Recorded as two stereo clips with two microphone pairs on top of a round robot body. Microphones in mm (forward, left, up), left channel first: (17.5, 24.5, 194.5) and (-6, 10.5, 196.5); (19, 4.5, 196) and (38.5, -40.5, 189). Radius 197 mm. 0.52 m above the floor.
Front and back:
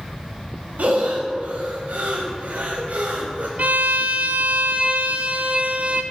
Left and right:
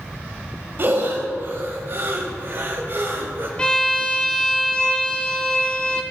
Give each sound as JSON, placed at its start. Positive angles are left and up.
{"t": 0.8, "sound": "breathing", "azimuth_deg": -115, "distance_m": 0.9}
{"t": 3.6, "sound": "a violin", "azimuth_deg": -175, "distance_m": 0.6}